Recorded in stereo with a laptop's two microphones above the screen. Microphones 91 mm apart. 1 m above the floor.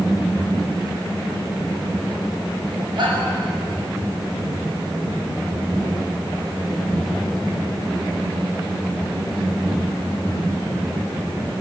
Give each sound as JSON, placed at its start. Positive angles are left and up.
{"t": 3.0, "sound": "a shout", "side_deg": -60, "distance_m": 7.5}